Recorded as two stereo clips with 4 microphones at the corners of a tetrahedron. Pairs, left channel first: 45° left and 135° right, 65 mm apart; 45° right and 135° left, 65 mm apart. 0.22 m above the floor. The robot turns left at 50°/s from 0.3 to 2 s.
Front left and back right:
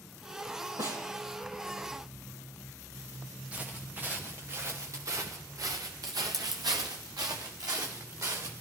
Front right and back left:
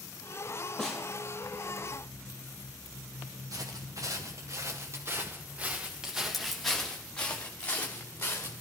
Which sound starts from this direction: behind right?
A snare drum, at 0.8 s.